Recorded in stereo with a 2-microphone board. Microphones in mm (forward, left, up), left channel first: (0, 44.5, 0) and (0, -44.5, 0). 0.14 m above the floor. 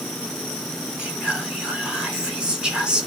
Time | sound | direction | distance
1.0 | whispering | 10° right (ahead or behind) | 1.1 m